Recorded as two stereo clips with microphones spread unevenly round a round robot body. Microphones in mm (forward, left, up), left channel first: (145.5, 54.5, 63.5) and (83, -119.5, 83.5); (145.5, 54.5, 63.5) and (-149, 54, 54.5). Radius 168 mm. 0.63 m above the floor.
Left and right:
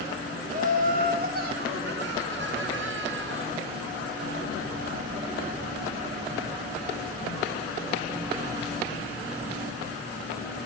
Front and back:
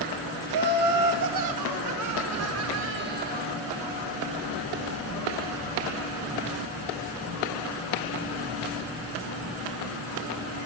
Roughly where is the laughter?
Behind.